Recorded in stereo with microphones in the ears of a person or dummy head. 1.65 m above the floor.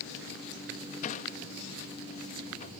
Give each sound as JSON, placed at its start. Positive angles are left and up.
{"t": 1.0, "sound": "a sliding door", "side_deg": 45}